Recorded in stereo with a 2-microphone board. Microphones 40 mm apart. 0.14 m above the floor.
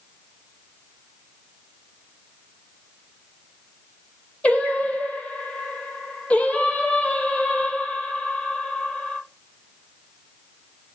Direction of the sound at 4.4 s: 35° left (ahead or behind).